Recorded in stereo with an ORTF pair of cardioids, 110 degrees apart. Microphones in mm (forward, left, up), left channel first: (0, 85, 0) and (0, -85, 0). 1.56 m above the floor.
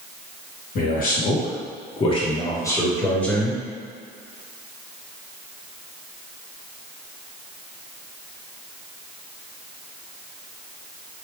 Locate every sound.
0.8 s a man speaking: 65° left, 1.4 m; by 3.6 s straight ahead, 1.5 m